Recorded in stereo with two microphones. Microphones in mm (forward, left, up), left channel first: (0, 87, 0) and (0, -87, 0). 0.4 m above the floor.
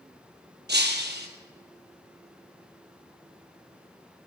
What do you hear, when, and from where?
0.7 s breaking glass: 80° right, 1.5 m